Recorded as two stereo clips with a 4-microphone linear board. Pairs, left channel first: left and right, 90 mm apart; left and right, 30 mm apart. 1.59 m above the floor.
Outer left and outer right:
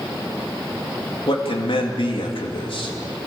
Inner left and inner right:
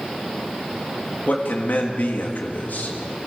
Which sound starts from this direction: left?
A man speaking, at 1.3 s.